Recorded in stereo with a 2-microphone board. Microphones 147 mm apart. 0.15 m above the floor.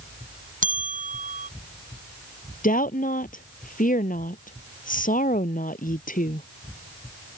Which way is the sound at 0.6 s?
65° right (ahead or behind).